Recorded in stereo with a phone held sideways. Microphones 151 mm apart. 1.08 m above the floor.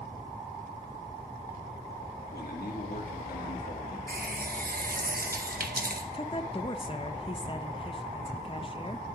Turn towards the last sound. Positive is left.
turn(degrees=35)  # may be behind; listen again after turning